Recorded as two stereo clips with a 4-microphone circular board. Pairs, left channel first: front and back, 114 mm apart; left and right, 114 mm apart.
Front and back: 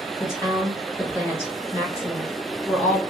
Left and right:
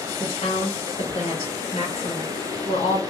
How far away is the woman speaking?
About 1.4 m.